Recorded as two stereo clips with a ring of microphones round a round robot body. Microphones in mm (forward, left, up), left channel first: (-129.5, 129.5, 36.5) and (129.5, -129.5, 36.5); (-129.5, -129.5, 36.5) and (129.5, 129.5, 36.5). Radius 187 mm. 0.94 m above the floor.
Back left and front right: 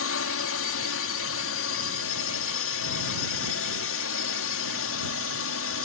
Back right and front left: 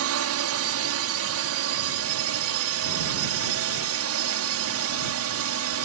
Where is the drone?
90° left.